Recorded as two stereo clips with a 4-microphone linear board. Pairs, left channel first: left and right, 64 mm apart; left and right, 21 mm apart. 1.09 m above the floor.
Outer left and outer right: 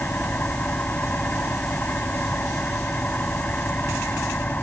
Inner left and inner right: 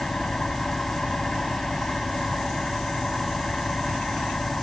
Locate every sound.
0.0 s an engine running: 25° left (ahead or behind)